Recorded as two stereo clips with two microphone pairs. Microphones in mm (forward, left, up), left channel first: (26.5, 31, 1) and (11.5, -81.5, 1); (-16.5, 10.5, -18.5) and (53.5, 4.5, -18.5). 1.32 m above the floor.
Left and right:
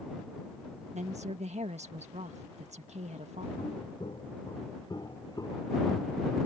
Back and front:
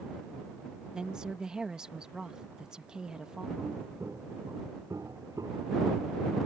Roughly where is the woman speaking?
Right.